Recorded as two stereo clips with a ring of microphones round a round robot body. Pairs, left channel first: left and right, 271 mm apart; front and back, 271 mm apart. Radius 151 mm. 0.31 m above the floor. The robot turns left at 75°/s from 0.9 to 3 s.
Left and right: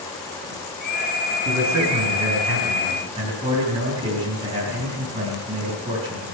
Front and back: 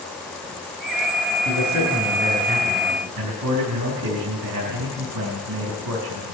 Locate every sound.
1.4 s a man speaking: 40° right, 4 m; by 6.3 s 155° right, 4 m